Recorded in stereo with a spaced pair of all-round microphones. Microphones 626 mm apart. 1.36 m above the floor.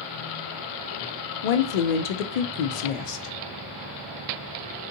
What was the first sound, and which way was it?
A woman speaking, 85° left.